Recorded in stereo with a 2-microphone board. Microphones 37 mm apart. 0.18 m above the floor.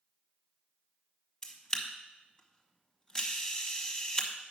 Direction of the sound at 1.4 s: 20° left (ahead or behind).